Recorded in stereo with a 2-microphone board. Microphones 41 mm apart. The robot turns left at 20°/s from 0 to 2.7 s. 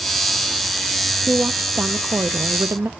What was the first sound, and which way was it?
A woman speaking, 40° right (ahead or behind).